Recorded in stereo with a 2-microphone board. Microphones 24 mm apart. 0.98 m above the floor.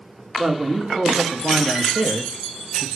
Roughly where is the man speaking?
Right.